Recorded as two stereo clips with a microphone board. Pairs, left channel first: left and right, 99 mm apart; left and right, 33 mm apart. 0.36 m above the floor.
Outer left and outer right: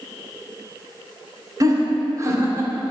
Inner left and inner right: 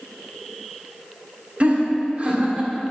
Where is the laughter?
40° right (ahead or behind), 2 m; by 2.9 s 30° right (ahead or behind), 1.7 m.